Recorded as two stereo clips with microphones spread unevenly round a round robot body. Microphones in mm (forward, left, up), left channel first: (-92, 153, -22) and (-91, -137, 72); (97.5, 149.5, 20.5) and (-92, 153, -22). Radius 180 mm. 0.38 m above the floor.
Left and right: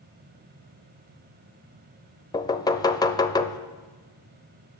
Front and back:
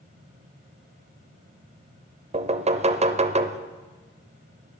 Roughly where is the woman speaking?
No woman speaking in this recording.